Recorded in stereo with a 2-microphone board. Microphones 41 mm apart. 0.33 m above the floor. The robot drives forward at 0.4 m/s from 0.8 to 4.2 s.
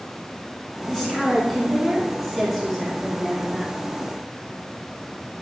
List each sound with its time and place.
0.8 s a woman speaking: 10° left (ahead or behind), 4 m; by 3.7 s 5° left (ahead or behind), 5 m